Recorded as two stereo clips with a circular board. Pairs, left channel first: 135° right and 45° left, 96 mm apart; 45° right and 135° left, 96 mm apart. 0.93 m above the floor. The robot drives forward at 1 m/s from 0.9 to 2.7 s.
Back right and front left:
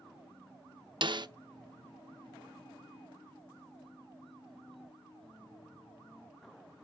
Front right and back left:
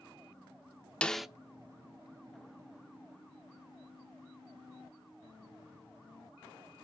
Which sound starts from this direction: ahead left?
A snare drum, at 1.0 s.